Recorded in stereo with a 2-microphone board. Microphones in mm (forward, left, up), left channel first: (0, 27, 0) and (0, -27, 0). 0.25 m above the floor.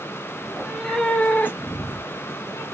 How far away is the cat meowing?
About 0.7 m.